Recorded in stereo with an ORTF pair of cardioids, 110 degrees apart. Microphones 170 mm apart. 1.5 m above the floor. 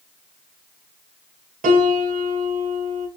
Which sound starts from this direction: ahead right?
A piano, at 1.6 s.